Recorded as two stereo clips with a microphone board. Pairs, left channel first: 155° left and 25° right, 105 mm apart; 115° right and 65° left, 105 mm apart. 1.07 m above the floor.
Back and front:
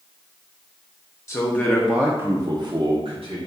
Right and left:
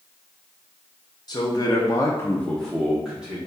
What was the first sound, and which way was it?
A man speaking, 150° right.